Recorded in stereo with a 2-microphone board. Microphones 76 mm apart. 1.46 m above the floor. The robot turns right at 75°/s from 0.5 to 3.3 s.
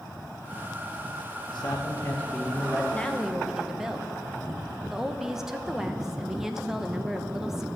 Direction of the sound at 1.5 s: 100° left.